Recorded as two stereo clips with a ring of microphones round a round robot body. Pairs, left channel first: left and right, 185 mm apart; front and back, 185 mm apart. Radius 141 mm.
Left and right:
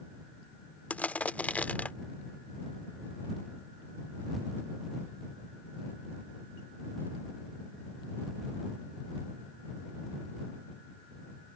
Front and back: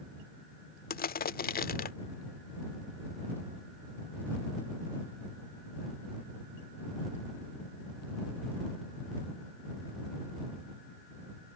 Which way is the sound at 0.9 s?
10° left.